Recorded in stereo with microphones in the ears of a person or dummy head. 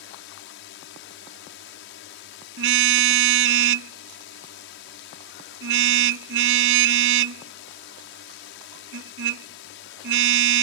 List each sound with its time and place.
0.0 s a drone: 60° left (ahead or behind)
2.6 s a car horn: 80° right